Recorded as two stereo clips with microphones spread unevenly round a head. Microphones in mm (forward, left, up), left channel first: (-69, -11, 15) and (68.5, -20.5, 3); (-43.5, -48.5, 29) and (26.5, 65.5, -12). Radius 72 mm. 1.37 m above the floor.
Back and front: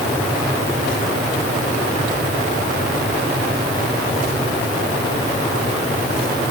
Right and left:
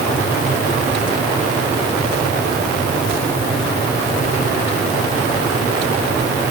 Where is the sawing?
No sawing in this recording.